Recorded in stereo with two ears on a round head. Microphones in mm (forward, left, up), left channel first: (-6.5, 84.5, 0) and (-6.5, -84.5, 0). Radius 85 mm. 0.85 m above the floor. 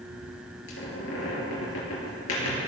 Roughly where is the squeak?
Left.